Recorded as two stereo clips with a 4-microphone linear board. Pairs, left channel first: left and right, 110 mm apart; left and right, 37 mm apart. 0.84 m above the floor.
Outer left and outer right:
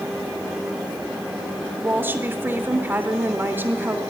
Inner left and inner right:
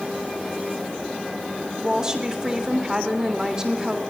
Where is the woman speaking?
20° right (ahead or behind), 3 m.